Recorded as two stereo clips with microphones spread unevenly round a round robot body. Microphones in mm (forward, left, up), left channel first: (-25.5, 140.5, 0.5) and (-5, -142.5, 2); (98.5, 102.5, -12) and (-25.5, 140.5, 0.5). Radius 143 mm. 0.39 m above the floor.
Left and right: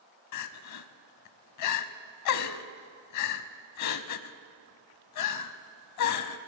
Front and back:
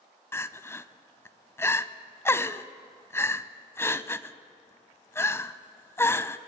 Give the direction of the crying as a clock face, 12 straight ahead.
10 o'clock.